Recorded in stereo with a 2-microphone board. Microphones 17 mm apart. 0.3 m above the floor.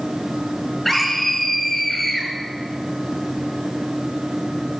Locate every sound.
0.8 s a scream: 15° left (ahead or behind), 5.5 m